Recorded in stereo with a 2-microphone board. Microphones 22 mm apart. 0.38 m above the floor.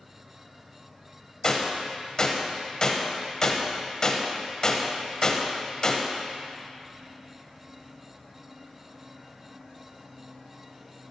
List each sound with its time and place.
1.4 s a gunshot: 25° left (ahead or behind), 1.0 m